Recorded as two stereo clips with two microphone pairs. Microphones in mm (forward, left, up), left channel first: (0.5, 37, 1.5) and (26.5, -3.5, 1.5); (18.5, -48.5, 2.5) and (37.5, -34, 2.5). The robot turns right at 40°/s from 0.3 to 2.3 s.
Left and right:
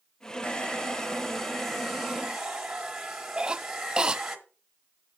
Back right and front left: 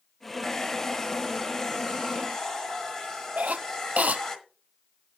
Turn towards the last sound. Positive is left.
turn(degrees=20)